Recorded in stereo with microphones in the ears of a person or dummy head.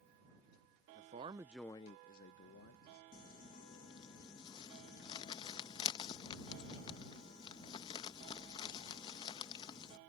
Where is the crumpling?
30° left (ahead or behind).